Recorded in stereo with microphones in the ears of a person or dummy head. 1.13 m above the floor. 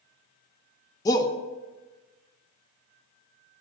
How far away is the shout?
About 0.6 m.